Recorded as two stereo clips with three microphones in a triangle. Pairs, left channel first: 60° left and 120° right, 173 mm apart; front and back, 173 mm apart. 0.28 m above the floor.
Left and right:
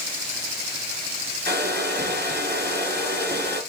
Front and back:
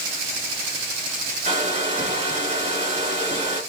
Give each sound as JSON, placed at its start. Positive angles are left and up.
{"t": 1.4, "sound": "a hair dryer", "azimuth_deg": -135, "distance_m": 4.0}